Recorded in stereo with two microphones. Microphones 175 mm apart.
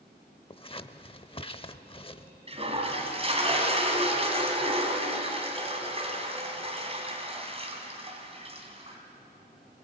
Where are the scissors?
30° left (ahead or behind), 0.6 m.